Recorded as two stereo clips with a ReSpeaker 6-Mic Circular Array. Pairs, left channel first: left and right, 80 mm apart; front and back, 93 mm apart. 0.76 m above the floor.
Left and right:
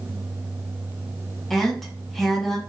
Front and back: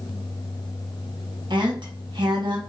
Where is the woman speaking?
175° left, 1.0 m.